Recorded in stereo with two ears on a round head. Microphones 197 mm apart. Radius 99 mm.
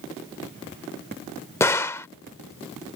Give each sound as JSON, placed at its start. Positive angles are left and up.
{"t": 1.6, "sound": "a gunshot", "side_deg": 15}